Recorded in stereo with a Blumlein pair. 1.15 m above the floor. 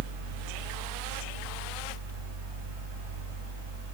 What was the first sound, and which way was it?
A fan, 65° right.